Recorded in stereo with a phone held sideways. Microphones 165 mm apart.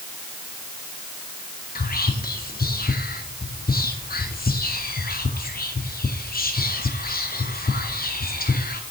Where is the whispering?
65° left (ahead or behind), 0.5 m.